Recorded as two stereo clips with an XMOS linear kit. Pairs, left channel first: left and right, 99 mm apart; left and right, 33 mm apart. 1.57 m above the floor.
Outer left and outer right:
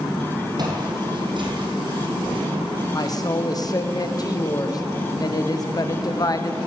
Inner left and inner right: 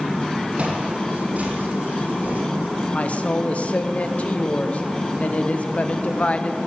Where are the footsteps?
45° right (ahead or behind), 3 m; by 2.4 s 60° right (ahead or behind), 4 m.